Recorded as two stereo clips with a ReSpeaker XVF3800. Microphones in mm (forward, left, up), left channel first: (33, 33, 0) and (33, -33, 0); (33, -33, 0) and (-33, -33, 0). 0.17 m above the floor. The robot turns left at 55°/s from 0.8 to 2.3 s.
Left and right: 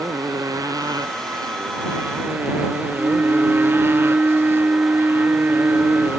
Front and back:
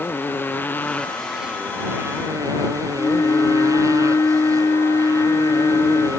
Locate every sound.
0.0 s a motorcycle: 65° right; by 6.2 s 145° right
3.0 s a flute: 30° right